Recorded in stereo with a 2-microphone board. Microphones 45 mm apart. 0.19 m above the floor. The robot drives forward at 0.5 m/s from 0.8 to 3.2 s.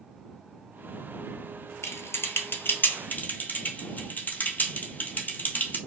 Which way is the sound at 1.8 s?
80° left.